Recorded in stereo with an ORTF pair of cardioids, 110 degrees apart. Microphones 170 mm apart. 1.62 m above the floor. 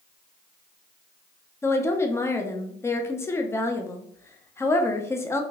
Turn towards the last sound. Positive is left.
turn(degrees=15)